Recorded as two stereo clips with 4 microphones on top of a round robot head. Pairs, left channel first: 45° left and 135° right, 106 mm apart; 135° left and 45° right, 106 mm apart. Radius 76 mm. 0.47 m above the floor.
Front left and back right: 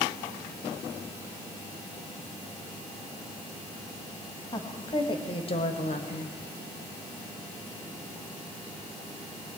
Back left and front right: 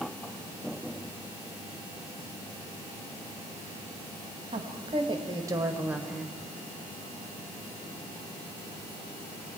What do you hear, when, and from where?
4.5 s a woman speaking: 10° right, 3 m; by 6.4 s 50° left, 1.7 m